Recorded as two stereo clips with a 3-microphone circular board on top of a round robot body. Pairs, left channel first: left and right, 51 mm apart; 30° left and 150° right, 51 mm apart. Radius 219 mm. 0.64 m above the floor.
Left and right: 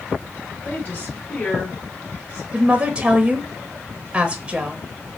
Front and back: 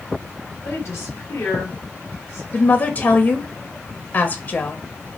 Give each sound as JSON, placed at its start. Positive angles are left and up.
{"t": 0.6, "sound": "a woman speaking", "azimuth_deg": 45, "distance_m": 3.0}
{"t": 2.5, "sound": "a woman speaking", "azimuth_deg": -20, "distance_m": 0.9}